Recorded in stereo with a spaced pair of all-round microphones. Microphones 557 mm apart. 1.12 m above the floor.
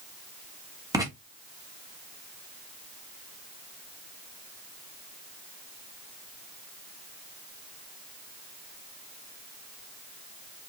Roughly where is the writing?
Centre.